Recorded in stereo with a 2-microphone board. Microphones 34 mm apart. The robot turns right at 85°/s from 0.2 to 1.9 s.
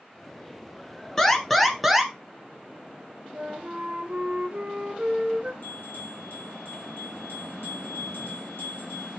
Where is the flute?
35° right (ahead or behind), 2 m.